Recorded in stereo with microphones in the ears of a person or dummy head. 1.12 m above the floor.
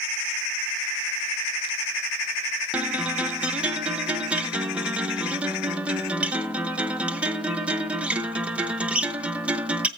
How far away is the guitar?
About 0.8 m.